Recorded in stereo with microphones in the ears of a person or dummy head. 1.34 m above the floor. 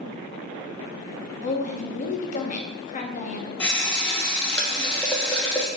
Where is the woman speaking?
45° left (ahead or behind), 0.6 m.